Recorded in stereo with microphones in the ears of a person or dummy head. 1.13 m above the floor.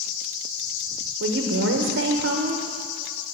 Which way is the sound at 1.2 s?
50° right (ahead or behind).